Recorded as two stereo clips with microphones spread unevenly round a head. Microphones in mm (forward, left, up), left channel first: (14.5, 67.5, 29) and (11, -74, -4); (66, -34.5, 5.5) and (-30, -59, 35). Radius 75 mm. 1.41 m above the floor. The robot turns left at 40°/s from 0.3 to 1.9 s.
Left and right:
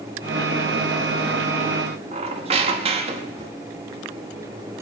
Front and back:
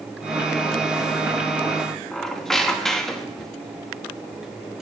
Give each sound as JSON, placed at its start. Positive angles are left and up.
{"t": 2.1, "sound": "a squeak", "azimuth_deg": -105, "distance_m": 0.8}